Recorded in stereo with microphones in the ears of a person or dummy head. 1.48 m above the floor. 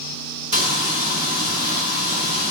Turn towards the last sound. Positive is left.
turn(degrees=-30)  # may be behind; listen again after turning